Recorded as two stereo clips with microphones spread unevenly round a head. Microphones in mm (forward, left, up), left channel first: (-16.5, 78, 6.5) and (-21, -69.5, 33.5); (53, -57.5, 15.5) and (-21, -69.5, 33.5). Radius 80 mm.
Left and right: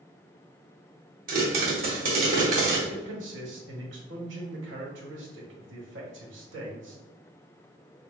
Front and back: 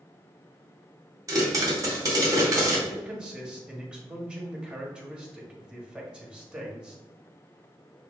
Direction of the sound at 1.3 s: 125° right.